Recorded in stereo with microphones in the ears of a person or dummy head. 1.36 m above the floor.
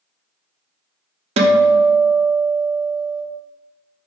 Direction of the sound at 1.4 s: 30° right (ahead or behind).